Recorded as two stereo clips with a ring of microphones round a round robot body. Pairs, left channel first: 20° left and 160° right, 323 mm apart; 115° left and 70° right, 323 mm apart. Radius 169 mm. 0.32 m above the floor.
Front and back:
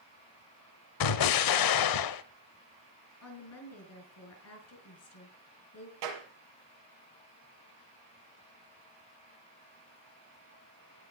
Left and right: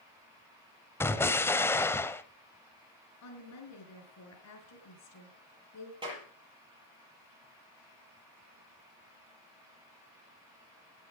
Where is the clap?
145° right, 6.5 m.